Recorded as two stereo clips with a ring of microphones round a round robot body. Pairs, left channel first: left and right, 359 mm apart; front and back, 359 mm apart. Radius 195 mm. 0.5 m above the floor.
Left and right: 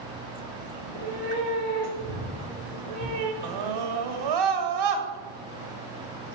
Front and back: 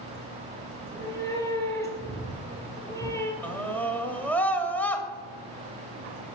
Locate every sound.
0.8 s a cat meowing: 85° right, 3.5 m
3.4 s a scream: 85° right, 2.5 m